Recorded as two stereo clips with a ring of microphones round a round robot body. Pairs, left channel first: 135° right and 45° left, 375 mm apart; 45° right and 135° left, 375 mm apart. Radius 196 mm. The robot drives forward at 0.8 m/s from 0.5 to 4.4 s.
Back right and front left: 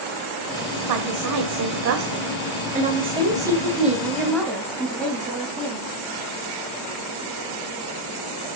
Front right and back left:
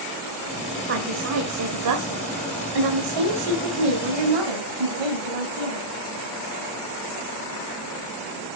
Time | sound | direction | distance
0.9 | a woman speaking | 75° left | 2 m